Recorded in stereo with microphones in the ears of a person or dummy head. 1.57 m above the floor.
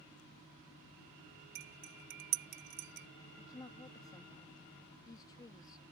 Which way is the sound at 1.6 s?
50° right (ahead or behind).